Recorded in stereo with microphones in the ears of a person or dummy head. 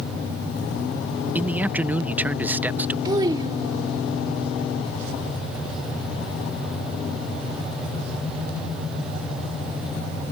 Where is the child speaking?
25° right (ahead or behind).